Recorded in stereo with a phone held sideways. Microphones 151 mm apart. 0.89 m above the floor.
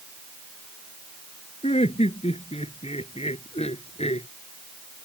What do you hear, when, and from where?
1.6 s laughter: 45° left (ahead or behind)